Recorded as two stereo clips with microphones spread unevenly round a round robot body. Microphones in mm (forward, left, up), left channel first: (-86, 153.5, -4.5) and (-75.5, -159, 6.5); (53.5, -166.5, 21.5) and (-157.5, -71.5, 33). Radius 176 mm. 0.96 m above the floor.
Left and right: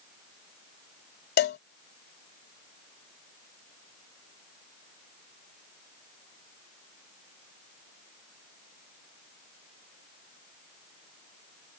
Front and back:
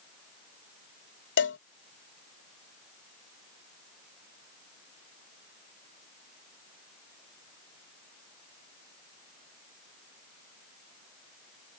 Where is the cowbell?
30° left.